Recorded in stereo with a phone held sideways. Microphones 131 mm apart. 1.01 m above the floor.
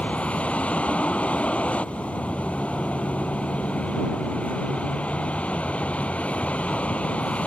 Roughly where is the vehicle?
Centre.